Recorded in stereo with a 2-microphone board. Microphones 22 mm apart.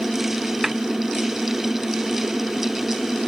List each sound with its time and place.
0.6 s a snare drum: 10° right (ahead or behind)